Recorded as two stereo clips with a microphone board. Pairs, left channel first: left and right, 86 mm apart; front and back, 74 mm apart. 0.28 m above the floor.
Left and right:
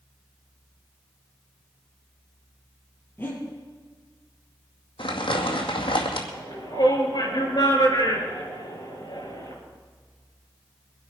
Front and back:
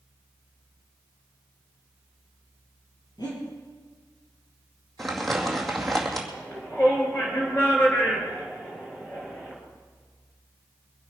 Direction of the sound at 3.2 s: 25° left.